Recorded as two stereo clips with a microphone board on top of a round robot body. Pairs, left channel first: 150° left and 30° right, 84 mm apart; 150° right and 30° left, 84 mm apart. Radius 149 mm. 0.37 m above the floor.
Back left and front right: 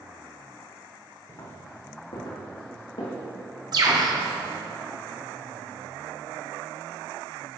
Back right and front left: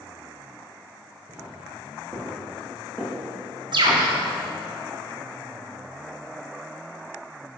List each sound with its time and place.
1.3 s footsteps: 100° left, 2.5 m; by 4.1 s 135° left, 4 m
3.7 s a bird: 5° left, 1.5 m